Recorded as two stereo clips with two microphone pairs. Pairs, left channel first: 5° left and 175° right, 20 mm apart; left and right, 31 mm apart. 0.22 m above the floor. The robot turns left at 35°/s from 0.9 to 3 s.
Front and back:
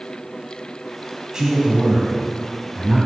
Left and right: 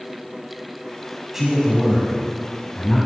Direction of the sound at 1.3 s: 155° right.